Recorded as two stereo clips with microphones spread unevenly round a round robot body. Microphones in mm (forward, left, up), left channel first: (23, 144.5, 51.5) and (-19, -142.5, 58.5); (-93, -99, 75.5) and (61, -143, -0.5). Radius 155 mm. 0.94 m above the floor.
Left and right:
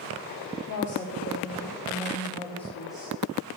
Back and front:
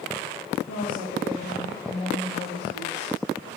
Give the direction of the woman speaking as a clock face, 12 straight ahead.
8 o'clock.